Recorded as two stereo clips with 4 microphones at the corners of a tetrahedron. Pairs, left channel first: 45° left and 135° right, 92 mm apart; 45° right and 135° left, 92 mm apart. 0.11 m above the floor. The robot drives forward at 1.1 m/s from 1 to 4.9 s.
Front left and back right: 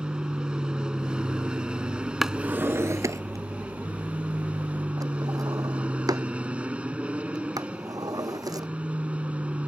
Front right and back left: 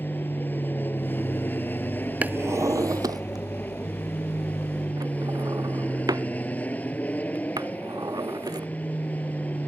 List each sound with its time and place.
0.0 s an aircraft: 70° right; by 9.7 s 80° right
2.2 s a drawer: 140° left; by 8.7 s straight behind